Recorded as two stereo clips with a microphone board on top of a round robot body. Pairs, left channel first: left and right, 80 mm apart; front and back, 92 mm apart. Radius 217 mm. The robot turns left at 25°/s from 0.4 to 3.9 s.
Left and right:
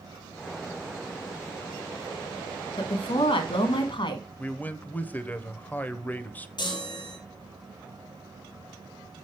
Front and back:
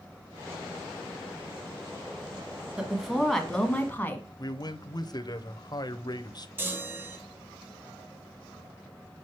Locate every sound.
2.8 s a woman speaking: 100° left, 1.6 m; by 4.2 s 75° left, 1.6 m
4.4 s a man speaking: 25° left, 1.0 m
6.6 s a chime: 115° left, 2 m